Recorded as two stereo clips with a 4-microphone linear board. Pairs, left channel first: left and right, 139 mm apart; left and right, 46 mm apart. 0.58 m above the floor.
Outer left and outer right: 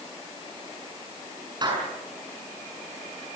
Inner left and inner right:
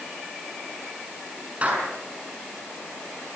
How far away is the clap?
About 7 m.